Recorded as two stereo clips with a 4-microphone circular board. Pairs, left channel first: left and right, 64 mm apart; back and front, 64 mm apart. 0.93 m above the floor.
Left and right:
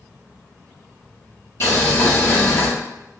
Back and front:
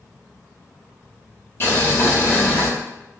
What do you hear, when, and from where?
1.6 s boiling: 130° left, 0.9 m